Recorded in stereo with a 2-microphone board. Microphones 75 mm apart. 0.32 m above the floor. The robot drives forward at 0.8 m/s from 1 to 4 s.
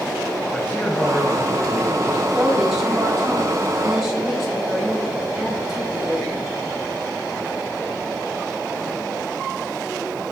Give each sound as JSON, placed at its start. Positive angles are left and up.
{"t": 0.5, "sound": "a man speaking", "side_deg": 20, "distance_m": 1.2}
{"t": 2.3, "sound": "a woman speaking", "side_deg": -5, "distance_m": 3.0}